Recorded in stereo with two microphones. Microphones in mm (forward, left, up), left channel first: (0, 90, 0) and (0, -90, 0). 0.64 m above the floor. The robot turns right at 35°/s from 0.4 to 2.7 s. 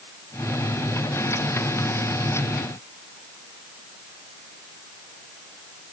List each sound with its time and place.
Only background noise.